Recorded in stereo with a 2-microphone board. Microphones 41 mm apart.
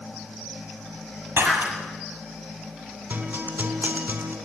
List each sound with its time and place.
1.4 s breaking glass: 70° right (ahead or behind), 6.5 m
3.1 s a guitar: 70° right (ahead or behind), 4 m